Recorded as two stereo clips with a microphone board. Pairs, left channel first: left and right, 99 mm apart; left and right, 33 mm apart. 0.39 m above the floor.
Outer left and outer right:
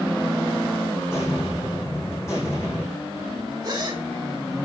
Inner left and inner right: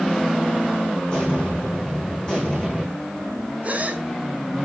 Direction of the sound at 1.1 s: 25° left (ahead or behind).